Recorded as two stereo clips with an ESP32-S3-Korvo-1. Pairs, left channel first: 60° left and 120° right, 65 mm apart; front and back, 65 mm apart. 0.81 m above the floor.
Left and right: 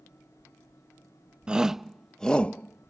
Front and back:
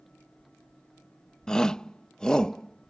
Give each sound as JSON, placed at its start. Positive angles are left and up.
{"t": 1.5, "sound": "a shout", "azimuth_deg": -70}